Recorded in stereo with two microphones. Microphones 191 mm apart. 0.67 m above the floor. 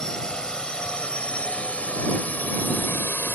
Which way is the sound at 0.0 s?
5° left (ahead or behind).